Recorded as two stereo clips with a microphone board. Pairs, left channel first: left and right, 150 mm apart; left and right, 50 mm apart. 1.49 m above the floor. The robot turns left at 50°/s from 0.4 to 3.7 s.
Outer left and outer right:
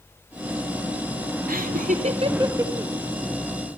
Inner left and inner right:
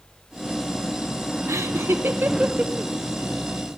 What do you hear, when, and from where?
1.5 s laughter: 75° right (ahead or behind), 0.9 m; by 2.9 s 5° right (ahead or behind), 0.9 m